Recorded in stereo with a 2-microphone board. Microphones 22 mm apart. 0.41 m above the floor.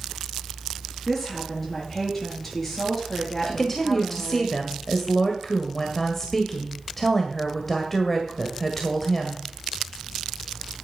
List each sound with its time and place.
1.1 s a woman speaking: 5° left (ahead or behind), 6 m
3.5 s a woman speaking: 10° left (ahead or behind), 1.7 m